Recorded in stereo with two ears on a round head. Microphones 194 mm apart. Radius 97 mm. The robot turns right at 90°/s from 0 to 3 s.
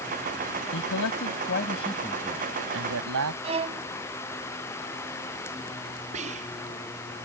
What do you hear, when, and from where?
0.7 s a man speaking: 55° left; by 3.3 s 100° right
3.4 s a violin: 25° right (ahead or behind)
6.1 s whispering: 30° right (ahead or behind)